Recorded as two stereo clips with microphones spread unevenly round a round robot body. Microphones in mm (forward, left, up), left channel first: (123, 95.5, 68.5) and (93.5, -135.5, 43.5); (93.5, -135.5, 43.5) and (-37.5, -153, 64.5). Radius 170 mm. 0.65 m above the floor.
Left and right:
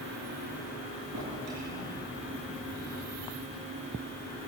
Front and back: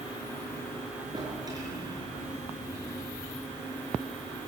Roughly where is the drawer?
Behind right.